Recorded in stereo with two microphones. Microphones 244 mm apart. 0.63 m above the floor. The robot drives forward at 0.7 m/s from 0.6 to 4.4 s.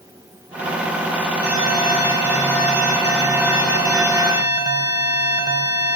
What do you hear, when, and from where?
1.4 s an alarm: 10° right (ahead or behind), 5.5 m; by 6.0 s 15° right (ahead or behind), 3.5 m